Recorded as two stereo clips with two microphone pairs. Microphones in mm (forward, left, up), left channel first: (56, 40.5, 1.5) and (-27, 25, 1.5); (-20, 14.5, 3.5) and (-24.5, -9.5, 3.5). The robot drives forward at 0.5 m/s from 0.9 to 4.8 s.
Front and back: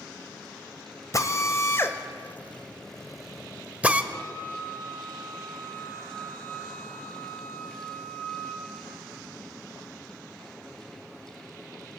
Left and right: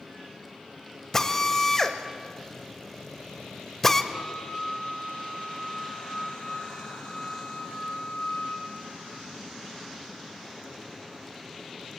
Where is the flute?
75° left, 3.5 m; by 8.6 s 80° left, 3.5 m.